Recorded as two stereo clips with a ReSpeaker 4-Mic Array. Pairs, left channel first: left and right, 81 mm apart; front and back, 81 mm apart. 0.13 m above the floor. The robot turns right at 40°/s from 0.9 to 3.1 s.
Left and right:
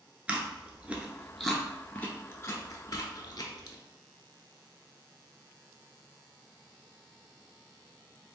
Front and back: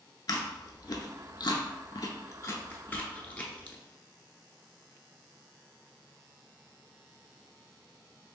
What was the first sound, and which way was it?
Chewing, 20° right.